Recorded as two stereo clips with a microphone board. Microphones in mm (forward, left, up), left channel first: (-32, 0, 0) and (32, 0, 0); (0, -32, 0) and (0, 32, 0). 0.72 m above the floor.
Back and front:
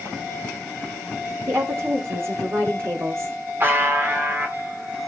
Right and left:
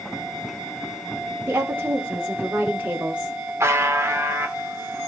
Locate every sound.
1.5 s a woman speaking: 40° left, 3 m; by 3.5 s 25° left, 2.0 m
3.6 s a buzzer: 50° left, 2 m